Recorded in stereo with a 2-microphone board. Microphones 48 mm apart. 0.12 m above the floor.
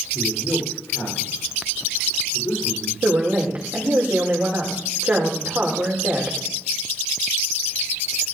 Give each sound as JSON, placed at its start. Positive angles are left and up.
{"t": 0.1, "sound": "a man speaking", "side_deg": 85, "distance_m": 9.0}
{"t": 3.0, "sound": "a woman speaking", "side_deg": -30, "distance_m": 6.5}